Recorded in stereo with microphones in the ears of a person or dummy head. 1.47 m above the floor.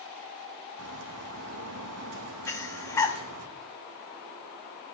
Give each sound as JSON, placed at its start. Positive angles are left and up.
{"t": 0.8, "sound": "a bird", "side_deg": -70, "distance_m": 2.0}
{"t": 2.5, "sound": "breathing", "side_deg": 15, "distance_m": 1.9}